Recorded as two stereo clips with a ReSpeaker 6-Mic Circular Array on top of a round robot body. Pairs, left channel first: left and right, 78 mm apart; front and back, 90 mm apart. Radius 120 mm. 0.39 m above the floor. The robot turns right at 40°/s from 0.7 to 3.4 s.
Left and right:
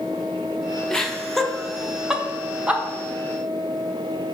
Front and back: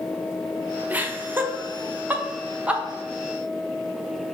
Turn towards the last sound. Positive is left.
turn(degrees=-105)